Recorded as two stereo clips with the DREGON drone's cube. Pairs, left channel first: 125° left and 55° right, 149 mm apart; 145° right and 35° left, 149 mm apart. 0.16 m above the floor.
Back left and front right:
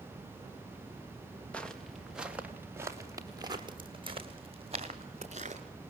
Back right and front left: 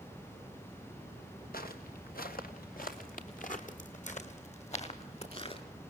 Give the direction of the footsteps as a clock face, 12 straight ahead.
5 o'clock.